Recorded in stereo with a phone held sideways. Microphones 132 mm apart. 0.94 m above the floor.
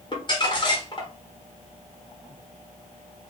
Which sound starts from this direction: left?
Crumpling, at 0.1 s.